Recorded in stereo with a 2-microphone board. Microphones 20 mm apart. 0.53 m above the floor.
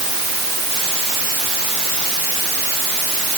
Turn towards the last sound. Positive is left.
No sound to turn to.